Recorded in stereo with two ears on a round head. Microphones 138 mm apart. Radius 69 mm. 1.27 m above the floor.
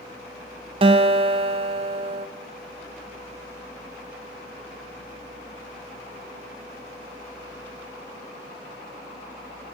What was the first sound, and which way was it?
A guitar, 35° right (ahead or behind).